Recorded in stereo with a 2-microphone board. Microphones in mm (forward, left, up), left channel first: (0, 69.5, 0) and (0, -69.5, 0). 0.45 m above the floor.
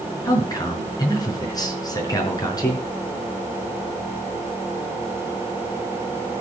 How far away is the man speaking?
About 5.5 m.